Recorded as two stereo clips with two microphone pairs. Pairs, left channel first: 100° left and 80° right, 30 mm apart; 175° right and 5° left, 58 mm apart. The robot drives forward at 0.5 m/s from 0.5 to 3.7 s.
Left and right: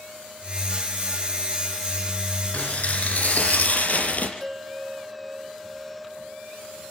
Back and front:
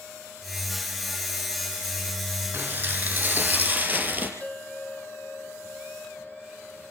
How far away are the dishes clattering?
About 5.5 m.